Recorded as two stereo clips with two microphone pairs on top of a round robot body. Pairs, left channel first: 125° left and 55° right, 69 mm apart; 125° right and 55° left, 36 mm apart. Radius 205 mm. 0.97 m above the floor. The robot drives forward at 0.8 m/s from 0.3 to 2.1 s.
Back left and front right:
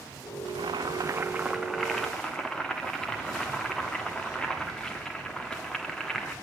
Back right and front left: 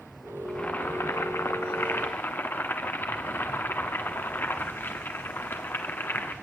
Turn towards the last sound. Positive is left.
turn(degrees=-155)